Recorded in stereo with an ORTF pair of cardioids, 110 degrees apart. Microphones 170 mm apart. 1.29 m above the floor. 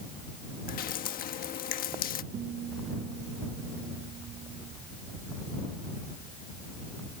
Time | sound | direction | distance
0.7 | dripping | 60° left | ?
2.3 | a guitar | 50° right | ?